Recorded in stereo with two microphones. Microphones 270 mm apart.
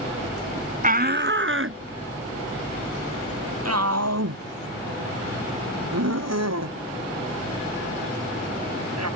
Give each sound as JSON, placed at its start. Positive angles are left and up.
{"t": 0.8, "sound": "a shout", "side_deg": -30}